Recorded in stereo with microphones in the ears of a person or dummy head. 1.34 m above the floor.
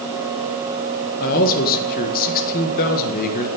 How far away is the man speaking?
About 1.4 m.